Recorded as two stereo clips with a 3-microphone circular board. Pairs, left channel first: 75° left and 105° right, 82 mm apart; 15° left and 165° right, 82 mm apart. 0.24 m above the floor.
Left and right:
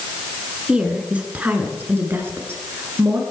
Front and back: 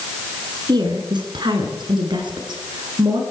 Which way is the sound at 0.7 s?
Straight behind.